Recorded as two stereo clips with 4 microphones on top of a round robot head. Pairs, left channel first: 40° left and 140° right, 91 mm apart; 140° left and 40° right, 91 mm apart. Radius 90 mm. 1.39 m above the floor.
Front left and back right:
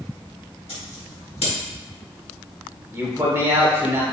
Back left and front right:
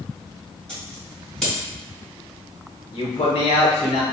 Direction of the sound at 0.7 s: 55° left.